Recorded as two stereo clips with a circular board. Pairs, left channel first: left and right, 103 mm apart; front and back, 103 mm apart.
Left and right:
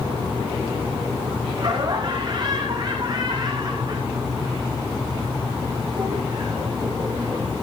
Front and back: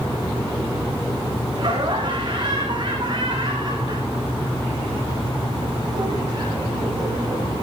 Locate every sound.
1.6 s laughter: 135° right, 6 m